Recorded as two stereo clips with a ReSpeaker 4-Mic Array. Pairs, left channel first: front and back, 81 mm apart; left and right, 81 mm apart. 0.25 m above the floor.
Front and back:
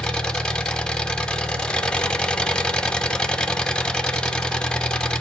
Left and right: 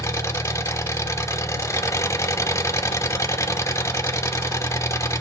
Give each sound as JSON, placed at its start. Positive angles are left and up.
{"t": 0.0, "sound": "an engine running", "azimuth_deg": 75, "distance_m": 0.8}